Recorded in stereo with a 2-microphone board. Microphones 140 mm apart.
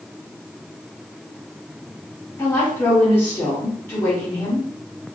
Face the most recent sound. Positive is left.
turn(degrees=15)  # may be behind; listen again after turning